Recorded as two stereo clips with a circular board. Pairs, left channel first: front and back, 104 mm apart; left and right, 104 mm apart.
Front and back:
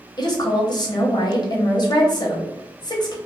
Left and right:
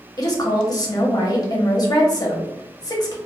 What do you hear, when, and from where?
0.2 s a woman speaking: 40° left, 0.7 m